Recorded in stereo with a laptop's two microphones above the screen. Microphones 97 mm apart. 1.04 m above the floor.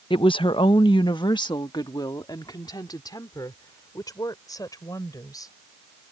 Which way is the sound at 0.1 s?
60° left (ahead or behind).